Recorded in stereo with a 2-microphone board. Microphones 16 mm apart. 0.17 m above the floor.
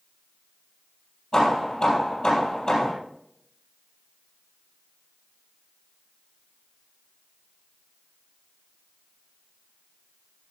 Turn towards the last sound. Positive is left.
turn(degrees=45)  # may be behind; listen again after turning